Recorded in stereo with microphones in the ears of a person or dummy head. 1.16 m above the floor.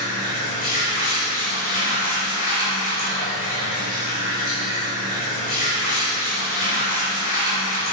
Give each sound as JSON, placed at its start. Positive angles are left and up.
{"t": 0.0, "sound": "running water", "side_deg": 40, "distance_m": 2.5}